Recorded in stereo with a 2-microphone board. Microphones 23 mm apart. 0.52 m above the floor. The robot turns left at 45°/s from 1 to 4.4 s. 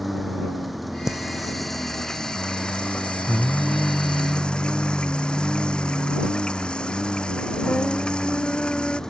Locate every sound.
0.0 s a lawn mower: straight behind; by 9.1 s 25° left
1.1 s singing: 165° right; by 9.0 s 45° left